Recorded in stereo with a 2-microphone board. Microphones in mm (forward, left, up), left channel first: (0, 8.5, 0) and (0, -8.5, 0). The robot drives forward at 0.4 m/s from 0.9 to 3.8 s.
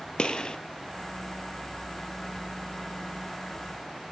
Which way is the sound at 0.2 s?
60° left (ahead or behind).